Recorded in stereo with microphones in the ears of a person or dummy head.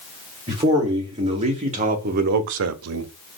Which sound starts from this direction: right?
A man speaking, at 0.5 s.